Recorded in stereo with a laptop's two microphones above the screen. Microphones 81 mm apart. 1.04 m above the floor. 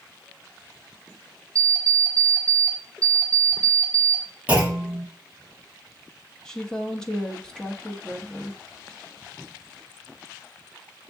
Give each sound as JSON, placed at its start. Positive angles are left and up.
{"t": 1.6, "sound": "an alarm clock", "side_deg": -40, "distance_m": 0.8}
{"t": 4.5, "sound": "a clunk", "side_deg": -20, "distance_m": 1.0}
{"t": 6.5, "sound": "a woman speaking", "side_deg": 10, "distance_m": 0.6}